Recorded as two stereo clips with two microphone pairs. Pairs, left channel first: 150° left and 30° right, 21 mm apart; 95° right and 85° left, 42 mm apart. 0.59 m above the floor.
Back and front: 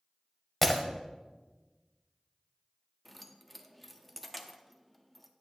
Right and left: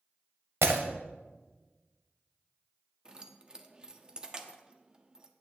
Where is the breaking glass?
70° left, 1.0 m.